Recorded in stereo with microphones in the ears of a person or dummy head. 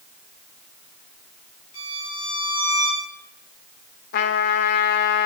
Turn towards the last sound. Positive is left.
turn(degrees=60)  # may be behind; listen again after turning